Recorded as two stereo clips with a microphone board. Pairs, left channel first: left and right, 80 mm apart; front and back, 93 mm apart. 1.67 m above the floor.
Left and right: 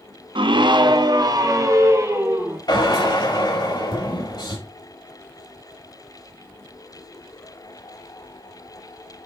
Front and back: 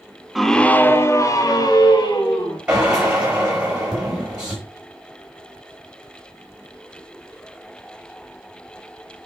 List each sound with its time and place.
0.3 s a scream: 90° right, 0.7 m; by 2.6 s 35° right, 1.8 m
2.7 s a drill: 105° left, 5 m